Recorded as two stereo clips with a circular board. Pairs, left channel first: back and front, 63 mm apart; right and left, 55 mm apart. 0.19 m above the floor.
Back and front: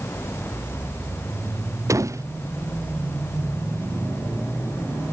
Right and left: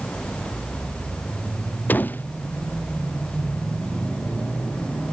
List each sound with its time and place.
1.9 s a door slam: 35° right